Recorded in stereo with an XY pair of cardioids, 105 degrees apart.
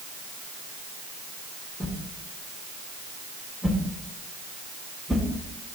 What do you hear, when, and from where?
1.8 s a whoosh: 15° left, 2.5 m